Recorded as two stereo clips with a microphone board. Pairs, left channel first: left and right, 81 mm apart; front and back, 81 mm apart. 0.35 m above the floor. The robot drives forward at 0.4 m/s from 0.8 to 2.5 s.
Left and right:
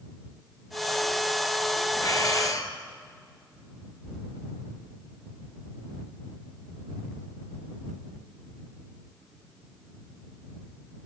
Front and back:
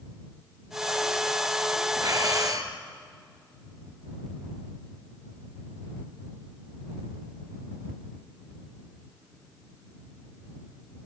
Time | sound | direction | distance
2.0 | breathing | 135° left | 3 m